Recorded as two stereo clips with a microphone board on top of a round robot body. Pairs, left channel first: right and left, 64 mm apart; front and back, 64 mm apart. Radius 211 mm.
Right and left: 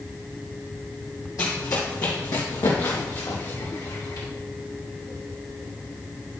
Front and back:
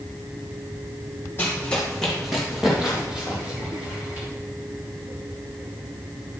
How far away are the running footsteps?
About 2 m.